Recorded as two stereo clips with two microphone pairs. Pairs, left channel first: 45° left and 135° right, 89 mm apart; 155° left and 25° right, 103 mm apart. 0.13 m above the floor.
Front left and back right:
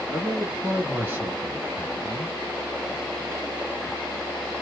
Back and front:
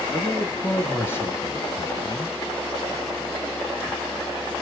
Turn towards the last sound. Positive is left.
turn(degrees=-165)